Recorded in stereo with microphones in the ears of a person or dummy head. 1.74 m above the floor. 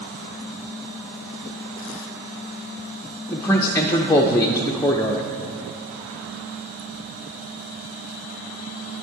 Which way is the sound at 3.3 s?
15° left (ahead or behind).